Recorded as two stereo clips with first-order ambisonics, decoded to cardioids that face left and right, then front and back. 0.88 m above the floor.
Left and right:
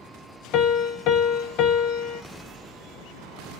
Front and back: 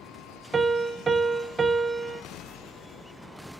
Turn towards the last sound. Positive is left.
turn(degrees=105)